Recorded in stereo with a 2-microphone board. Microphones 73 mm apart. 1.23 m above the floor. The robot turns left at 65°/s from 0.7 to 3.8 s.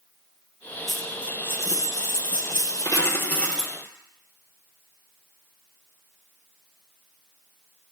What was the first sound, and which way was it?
A dropped coin, 175° right.